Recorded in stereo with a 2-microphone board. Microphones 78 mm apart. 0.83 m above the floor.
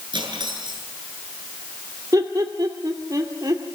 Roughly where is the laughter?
Right.